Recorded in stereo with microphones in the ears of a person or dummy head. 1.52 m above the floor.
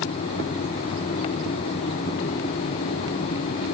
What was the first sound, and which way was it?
Only background noise.